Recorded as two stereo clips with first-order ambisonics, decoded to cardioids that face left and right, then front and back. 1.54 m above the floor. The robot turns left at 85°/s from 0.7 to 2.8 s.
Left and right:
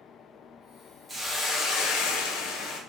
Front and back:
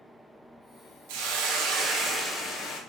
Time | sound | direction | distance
1.1 | a hiss | 175° right | 0.8 m